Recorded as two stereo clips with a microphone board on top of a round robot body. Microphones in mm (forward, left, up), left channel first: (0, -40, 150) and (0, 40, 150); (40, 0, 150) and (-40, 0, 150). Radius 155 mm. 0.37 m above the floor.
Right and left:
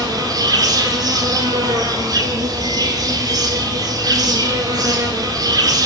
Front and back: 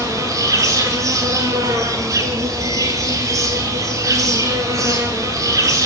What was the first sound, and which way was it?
An insect, 130° left.